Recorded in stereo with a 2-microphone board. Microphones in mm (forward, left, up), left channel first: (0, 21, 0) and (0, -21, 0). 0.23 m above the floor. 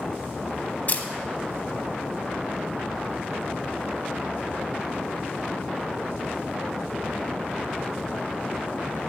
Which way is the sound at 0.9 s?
40° left (ahead or behind).